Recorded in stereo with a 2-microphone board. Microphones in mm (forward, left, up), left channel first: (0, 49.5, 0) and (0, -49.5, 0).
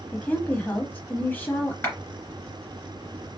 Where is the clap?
25° left (ahead or behind), 2.5 m.